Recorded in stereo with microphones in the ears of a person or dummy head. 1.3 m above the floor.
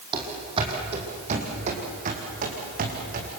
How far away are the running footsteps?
About 4 m.